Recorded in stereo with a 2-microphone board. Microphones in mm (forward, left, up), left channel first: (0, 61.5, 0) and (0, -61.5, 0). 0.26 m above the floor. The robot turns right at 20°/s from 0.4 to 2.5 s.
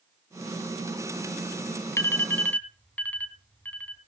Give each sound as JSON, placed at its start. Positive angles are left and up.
{"t": 2.0, "sound": "an alarm", "side_deg": 20, "distance_m": 2.5}